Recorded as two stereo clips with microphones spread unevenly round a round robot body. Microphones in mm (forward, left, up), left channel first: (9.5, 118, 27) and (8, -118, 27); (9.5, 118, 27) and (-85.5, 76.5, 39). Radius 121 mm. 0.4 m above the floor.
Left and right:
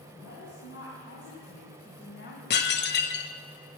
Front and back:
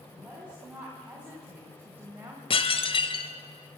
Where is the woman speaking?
125° left, 4 m; by 2.4 s 135° left, 2.5 m.